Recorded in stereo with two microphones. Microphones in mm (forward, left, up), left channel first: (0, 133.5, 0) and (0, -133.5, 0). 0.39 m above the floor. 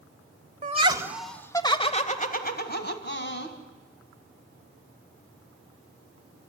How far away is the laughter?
About 1.2 m.